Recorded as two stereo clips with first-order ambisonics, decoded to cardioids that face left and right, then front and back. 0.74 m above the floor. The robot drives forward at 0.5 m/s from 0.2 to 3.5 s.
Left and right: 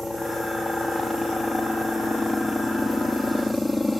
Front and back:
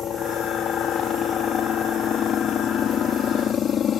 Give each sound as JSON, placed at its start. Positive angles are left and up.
{"t": 0.0, "sound": "a helicopter", "azimuth_deg": 10}